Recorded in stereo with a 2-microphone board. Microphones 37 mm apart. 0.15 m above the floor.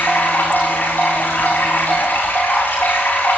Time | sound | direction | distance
0.0 | running water | 65° left (ahead or behind) | 9.5 m